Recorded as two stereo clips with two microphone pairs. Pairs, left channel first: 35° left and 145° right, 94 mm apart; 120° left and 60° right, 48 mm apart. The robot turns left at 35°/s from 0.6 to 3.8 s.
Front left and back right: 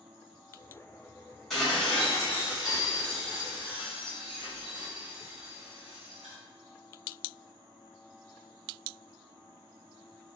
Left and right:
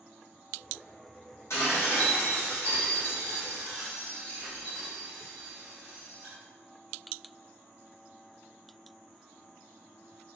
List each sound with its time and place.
1.5 s dishes clattering: 125° left, 1.5 m; by 6.3 s 45° left, 1.5 m